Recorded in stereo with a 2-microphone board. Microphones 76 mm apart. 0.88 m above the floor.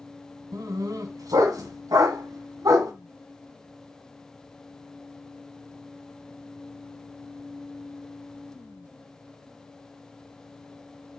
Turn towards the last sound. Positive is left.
turn(degrees=-55)  # may be behind; listen again after turning